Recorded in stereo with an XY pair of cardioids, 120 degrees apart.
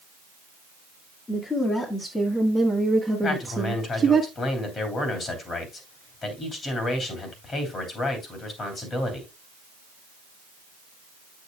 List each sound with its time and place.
1.3 s a woman speaking: 30° left, 1.9 m; by 4.2 s 35° right, 1.3 m
3.2 s a man speaking: 40° left, 3 m